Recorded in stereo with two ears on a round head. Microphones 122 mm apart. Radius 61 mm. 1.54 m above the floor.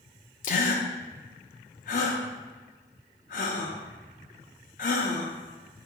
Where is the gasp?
60° left (ahead or behind), 0.6 m.